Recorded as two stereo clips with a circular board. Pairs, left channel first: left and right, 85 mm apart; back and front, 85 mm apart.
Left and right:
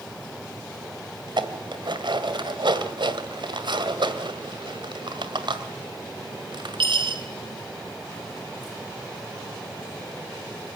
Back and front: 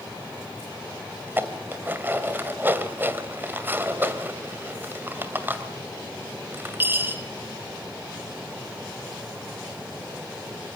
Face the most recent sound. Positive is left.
turn(degrees=-70)